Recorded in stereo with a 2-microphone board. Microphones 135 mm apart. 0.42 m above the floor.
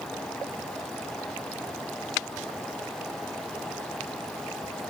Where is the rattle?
No rattle in this recording.